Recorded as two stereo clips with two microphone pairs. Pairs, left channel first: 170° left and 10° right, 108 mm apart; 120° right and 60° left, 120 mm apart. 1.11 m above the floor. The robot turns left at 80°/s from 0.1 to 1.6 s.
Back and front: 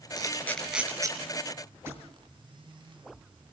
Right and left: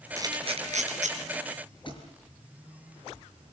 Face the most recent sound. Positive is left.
turn(degrees=-75)